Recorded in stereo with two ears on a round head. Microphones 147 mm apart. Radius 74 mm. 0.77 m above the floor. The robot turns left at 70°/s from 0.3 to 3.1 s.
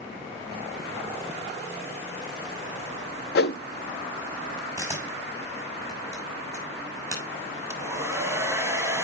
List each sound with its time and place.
3.4 s a whoosh: 65° left (ahead or behind), 0.5 m
4.8 s a camera shutter: 15° right (ahead or behind), 5.5 m
7.7 s a hair dryer: 20° right (ahead or behind), 1.6 m